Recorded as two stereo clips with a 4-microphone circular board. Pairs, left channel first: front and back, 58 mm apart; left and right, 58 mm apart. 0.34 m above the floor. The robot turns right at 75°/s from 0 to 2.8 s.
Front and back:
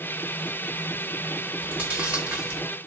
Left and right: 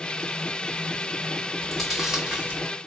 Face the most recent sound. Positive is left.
turn(degrees=-105)